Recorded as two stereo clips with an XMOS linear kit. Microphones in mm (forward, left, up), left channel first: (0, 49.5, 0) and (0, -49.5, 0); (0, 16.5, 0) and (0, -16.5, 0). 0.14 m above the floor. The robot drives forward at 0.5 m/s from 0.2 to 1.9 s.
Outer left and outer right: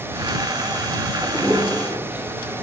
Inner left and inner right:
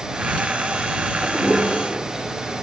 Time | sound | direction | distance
1.2 | a toilet flushing | 20° right (ahead or behind) | 2 m